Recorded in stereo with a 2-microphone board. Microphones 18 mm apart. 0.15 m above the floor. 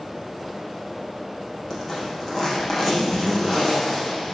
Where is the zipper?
15° left (ahead or behind), 7 m.